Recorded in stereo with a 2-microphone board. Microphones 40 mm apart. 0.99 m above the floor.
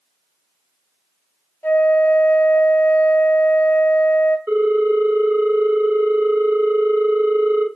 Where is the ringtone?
60° right (ahead or behind), 1.8 m.